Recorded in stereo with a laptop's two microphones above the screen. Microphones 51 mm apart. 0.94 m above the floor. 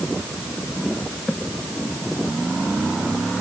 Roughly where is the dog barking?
No dog barking in this recording.